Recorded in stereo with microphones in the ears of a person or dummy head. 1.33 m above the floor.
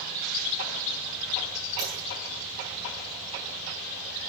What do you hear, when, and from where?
1.8 s a dropped coin: 20° right (ahead or behind), 8 m